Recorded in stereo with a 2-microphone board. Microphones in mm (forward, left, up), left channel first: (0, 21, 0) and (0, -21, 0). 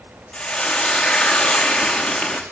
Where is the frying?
20° left (ahead or behind), 5.5 m.